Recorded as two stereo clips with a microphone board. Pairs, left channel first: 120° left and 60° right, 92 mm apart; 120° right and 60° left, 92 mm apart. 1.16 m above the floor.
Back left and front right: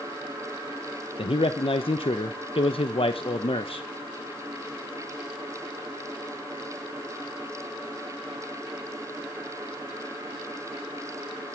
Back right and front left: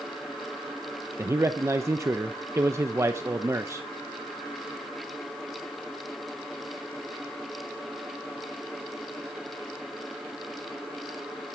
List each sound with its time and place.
1.2 s a man speaking: 120° left, 0.9 m